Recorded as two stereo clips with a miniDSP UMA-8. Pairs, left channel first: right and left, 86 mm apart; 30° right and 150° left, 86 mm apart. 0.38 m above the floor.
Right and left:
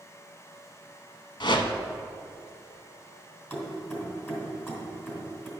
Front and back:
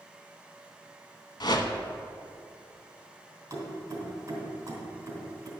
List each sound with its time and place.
1.4 s a whoosh: 60° right, 0.8 m
3.5 s keys jangling: 155° right, 2.5 m